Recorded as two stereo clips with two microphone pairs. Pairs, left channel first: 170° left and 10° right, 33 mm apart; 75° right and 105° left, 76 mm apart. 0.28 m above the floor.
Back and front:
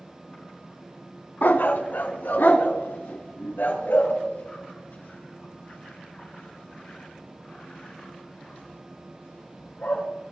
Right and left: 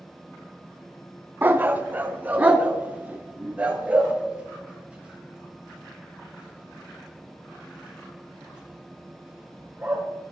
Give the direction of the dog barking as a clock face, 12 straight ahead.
6 o'clock.